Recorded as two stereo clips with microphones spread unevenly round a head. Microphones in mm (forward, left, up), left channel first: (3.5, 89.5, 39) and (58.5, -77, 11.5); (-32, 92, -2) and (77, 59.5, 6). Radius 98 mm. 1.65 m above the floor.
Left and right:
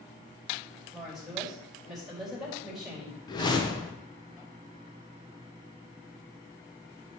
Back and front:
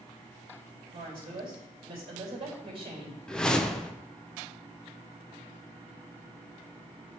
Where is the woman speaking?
20° left, 4 m.